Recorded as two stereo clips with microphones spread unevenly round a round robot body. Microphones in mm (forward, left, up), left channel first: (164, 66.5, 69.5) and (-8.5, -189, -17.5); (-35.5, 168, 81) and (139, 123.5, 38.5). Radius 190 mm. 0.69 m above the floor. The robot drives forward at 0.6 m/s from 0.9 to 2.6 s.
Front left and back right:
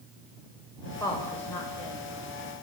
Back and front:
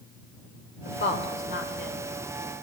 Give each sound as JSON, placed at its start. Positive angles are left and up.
{"t": 0.8, "sound": "a woman speaking", "azimuth_deg": 140, "distance_m": 3.5}